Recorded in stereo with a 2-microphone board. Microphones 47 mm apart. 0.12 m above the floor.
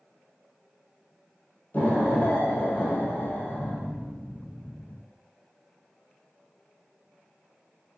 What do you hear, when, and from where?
1.7 s an explosion: 40° left (ahead or behind), 1.9 m